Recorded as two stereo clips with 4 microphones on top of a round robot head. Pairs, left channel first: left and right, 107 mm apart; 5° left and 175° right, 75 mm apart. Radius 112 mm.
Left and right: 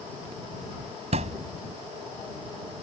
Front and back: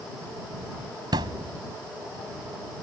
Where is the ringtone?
I don't hear a ringtone.